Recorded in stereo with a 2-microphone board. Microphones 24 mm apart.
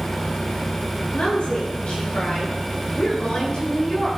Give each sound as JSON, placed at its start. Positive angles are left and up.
{"t": 1.1, "sound": "a woman speaking", "side_deg": 65, "distance_m": 8.0}